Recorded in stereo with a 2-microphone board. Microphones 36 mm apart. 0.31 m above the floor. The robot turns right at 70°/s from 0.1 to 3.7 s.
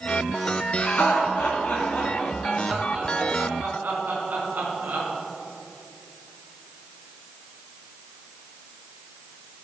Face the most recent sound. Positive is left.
turn(degrees=-60)  # may be behind; listen again after turning